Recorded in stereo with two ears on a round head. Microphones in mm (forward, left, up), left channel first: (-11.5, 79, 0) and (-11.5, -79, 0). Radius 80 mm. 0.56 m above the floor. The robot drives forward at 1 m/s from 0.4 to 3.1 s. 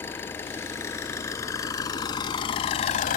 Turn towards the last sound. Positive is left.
turn(degrees=45)  # may be behind; listen again after turning